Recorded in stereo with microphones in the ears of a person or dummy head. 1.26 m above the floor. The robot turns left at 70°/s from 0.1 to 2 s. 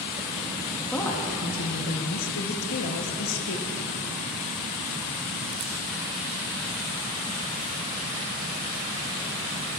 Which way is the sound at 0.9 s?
175° left.